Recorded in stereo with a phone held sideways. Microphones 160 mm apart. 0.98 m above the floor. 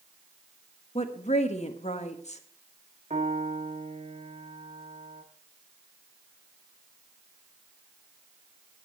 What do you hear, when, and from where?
0.9 s a woman speaking: 45° left (ahead or behind), 1.4 m
3.1 s a piano: 40° right (ahead or behind), 1.8 m